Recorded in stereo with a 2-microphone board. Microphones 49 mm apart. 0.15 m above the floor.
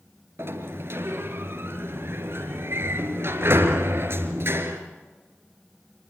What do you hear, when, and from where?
0.4 s a sliding door: 60° right (ahead or behind), 2.5 m